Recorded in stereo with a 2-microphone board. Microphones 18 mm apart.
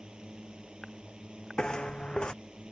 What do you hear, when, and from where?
0.0 s a drone: 75° right (ahead or behind)
1.6 s footsteps: 75° left (ahead or behind)